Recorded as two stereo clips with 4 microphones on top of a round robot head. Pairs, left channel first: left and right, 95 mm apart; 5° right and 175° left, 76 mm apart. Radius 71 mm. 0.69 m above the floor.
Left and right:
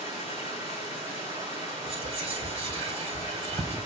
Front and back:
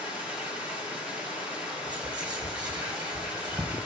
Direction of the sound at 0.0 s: 30° right.